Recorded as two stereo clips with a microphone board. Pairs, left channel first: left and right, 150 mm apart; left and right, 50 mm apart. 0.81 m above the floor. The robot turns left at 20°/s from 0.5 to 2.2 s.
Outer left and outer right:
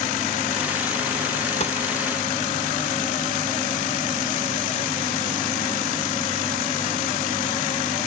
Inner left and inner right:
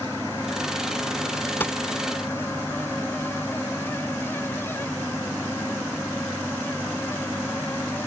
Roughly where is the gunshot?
Left.